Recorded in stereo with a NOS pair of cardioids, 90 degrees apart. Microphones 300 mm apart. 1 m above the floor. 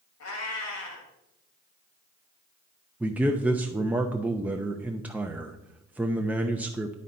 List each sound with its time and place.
0.2 s a cat meowing: 60° left, 2.5 m
3.0 s a man speaking: 5° right, 0.6 m